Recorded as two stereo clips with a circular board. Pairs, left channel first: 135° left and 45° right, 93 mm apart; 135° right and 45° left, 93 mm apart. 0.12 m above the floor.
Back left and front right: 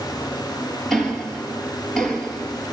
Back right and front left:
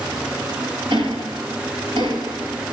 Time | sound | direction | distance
0.9 | ticking | 50° left | 3 m